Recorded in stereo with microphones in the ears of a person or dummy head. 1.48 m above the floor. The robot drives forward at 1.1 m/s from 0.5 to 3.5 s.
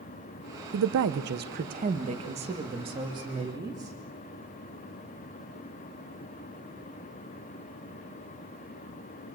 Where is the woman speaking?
80° right, 1.0 m; by 4.0 s 15° right (ahead or behind), 3.5 m.